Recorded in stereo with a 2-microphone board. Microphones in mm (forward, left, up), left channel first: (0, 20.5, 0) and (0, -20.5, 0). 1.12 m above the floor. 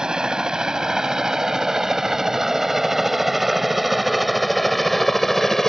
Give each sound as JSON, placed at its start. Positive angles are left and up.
{"t": 0.0, "sound": "a helicopter", "side_deg": -20}